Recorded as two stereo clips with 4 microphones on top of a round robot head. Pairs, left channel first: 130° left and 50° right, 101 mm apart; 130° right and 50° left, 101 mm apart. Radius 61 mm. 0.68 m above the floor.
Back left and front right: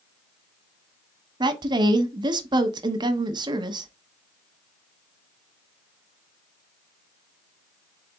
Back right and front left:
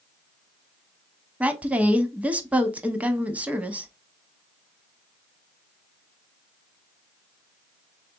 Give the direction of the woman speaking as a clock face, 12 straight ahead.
1 o'clock.